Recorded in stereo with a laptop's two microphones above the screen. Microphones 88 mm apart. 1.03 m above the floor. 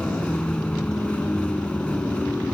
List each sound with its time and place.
0.0 s a vehicle: 15° left (ahead or behind)